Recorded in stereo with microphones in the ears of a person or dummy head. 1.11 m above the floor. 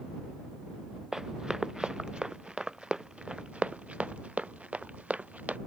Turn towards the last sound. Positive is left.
turn(degrees=-5)  # may be behind; listen again after turning